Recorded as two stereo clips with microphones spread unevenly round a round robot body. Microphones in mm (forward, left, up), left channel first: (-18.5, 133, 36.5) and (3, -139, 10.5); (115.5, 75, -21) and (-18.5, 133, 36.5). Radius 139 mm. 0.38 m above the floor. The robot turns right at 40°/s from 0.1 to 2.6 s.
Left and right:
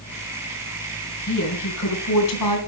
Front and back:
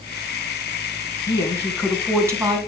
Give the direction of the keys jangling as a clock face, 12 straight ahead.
No keys jangling in this recording.